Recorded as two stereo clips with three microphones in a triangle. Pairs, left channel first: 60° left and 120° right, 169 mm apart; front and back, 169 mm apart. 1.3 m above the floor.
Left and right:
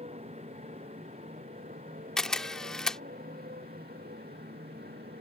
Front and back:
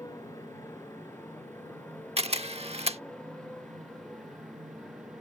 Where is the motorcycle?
70° right; by 5.2 s 90° right.